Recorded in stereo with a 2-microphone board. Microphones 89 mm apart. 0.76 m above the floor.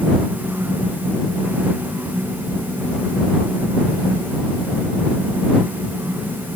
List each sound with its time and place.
Only background noise.